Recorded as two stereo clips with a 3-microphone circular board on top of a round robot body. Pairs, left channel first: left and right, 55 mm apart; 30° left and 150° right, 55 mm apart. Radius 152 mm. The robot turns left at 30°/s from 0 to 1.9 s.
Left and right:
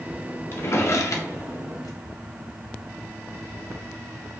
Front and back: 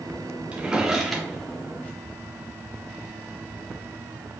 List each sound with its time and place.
0.5 s a drawer: 140° left, 0.9 m; by 2.0 s 95° left, 0.9 m